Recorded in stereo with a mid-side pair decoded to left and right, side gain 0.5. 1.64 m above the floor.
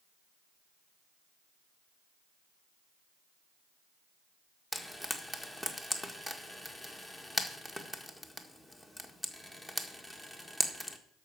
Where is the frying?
15° left, 1.6 m.